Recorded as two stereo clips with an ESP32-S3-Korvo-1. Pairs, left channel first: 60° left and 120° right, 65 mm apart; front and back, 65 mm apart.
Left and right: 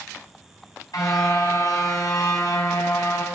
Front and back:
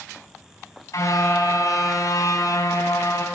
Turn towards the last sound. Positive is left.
turn(degrees=35)